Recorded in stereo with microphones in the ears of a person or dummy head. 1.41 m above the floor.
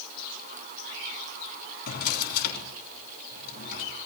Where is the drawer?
60° left (ahead or behind), 3.5 m.